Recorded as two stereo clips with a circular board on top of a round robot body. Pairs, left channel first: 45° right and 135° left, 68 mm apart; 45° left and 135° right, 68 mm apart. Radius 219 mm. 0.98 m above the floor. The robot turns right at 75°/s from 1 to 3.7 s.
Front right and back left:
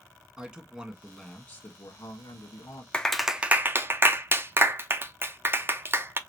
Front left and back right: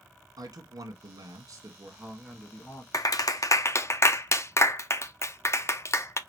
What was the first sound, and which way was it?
A man speaking, 140° right.